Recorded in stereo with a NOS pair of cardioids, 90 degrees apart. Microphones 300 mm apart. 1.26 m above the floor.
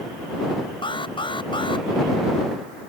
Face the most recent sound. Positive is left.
turn(degrees=15)